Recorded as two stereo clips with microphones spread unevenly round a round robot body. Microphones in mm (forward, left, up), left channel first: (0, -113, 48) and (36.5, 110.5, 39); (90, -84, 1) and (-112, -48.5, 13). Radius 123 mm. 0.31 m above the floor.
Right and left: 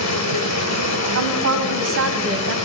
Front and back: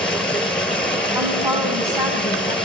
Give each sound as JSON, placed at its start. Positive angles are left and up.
{"t": 0.0, "sound": "running water", "azimuth_deg": -95, "distance_m": 2.0}
{"t": 1.1, "sound": "a woman speaking", "azimuth_deg": 95, "distance_m": 2.0}